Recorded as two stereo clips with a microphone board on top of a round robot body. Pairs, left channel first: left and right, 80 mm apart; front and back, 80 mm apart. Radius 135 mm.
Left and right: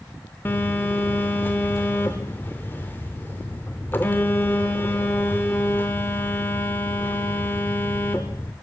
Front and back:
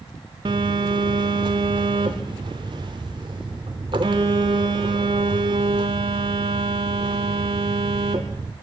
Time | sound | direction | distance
0.5 | a phone buzzing | 155° left | 0.6 m